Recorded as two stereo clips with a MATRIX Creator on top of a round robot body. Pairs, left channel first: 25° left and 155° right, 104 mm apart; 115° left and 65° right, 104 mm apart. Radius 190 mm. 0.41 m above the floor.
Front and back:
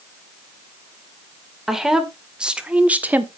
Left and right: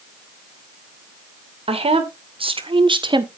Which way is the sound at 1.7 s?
70° right.